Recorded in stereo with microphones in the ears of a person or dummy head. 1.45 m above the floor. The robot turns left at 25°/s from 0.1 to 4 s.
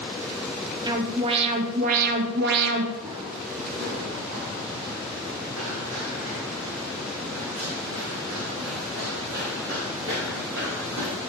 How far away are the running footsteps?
About 3 m.